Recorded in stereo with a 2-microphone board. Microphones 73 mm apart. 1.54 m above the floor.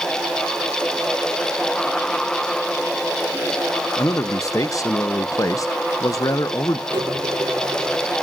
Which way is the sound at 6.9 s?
75° right (ahead or behind).